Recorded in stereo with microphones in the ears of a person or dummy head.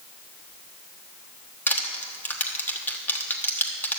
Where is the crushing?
15° left (ahead or behind), 1.2 m.